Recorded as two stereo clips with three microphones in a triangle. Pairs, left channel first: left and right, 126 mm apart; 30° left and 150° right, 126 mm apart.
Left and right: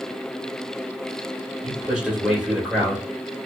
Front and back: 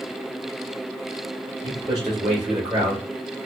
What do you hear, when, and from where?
1.6 s a man speaking: 165° right, 1.5 m